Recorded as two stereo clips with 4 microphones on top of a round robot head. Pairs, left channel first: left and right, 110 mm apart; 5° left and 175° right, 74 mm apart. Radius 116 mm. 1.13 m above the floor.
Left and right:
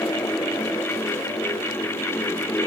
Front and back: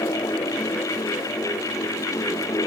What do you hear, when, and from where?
Only background noise.